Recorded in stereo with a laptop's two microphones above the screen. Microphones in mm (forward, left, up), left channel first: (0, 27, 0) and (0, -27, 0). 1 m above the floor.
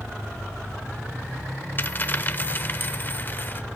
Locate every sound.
1.8 s a dropped coin: 40° left (ahead or behind), 0.8 m